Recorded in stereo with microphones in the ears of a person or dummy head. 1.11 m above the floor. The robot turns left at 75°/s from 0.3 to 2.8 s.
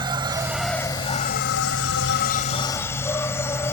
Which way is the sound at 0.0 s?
160° right.